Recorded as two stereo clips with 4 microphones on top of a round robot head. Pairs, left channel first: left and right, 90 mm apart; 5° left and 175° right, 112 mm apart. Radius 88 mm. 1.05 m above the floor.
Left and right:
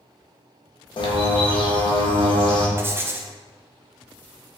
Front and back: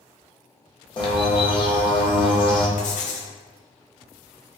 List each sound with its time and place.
1.0 s a bird: 55° left, 0.8 m
2.8 s writing: 25° right, 0.5 m